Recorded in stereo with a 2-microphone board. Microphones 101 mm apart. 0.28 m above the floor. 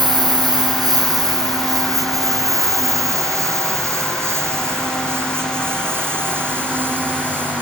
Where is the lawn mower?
40° right (ahead or behind); by 7.6 s 15° right (ahead or behind).